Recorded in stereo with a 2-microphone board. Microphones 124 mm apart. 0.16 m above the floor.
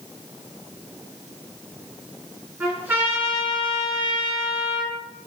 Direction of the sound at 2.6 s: 15° right (ahead or behind).